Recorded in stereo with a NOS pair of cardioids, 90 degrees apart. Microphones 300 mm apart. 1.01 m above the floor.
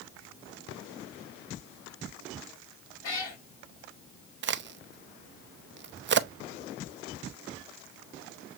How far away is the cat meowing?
About 3 m.